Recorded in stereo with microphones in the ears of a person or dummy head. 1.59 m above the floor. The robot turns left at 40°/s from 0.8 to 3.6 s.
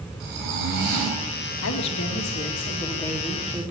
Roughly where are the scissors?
No scissors in this recording.